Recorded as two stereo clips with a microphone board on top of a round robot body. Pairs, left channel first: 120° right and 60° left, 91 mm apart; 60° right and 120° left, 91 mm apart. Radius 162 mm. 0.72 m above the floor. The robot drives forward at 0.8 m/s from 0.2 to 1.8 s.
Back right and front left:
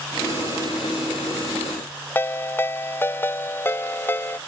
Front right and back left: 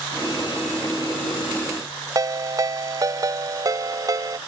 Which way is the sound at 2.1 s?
175° left.